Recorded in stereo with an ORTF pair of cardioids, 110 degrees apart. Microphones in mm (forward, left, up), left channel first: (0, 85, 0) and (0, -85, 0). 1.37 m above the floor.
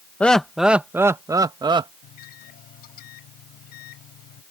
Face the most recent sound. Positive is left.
turn(degrees=65)